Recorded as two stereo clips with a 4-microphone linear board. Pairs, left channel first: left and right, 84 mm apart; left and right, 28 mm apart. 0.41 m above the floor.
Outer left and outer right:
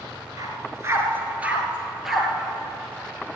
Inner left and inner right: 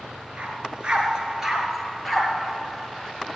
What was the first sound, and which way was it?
A dog barking, 45° right (ahead or behind).